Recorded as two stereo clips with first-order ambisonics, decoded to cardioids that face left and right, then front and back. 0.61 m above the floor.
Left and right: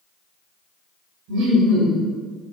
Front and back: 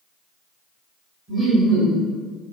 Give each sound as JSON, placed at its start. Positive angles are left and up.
{"t": 1.3, "sound": "laughter", "azimuth_deg": -110, "distance_m": 1.5}